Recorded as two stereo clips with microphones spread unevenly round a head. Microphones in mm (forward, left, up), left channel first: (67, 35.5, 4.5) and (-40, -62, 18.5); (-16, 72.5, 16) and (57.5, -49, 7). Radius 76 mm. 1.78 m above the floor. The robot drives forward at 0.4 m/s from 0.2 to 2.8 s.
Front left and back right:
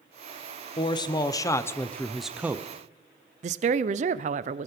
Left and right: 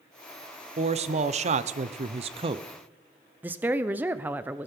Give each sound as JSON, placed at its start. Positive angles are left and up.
{"t": 0.8, "sound": "a man speaking", "azimuth_deg": -15, "distance_m": 0.9}
{"t": 3.4, "sound": "a woman speaking", "azimuth_deg": -140, "distance_m": 0.5}